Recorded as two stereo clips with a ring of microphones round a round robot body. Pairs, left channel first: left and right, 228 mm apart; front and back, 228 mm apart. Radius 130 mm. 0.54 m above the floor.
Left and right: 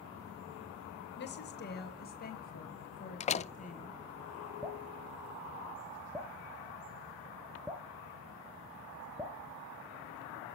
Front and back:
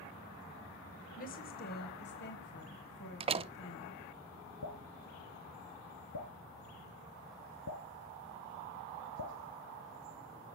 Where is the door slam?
130° left, 0.9 m.